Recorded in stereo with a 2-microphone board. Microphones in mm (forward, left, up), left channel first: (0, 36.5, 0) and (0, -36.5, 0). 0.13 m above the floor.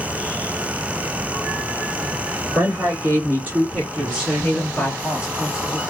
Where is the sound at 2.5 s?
45° right (ahead or behind), 2.5 m; by 5.0 s 20° left (ahead or behind), 1.8 m.